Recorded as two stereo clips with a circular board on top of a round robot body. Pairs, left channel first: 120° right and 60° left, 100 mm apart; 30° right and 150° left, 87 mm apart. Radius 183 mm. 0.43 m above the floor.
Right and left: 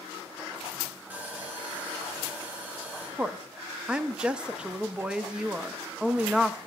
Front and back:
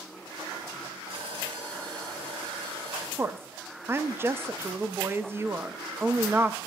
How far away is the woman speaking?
About 0.7 m.